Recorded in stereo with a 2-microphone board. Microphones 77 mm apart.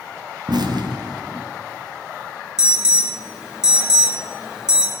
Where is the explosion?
70° right (ahead or behind), 1.2 m.